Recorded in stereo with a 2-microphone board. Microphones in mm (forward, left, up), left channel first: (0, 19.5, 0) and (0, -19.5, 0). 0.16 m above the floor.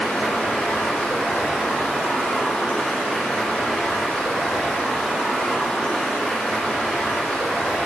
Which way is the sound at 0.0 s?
35° left (ahead or behind).